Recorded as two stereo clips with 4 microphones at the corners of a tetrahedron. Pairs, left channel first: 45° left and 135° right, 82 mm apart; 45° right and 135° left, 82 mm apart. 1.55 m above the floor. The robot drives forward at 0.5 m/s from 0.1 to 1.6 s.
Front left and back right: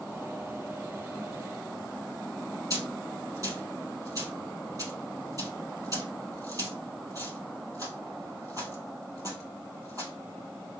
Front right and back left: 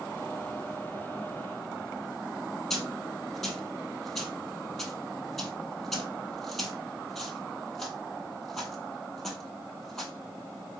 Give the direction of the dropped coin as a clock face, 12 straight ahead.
4 o'clock.